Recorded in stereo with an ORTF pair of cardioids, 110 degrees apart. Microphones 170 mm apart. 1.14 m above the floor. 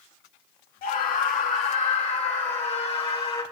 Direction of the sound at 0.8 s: 65° left.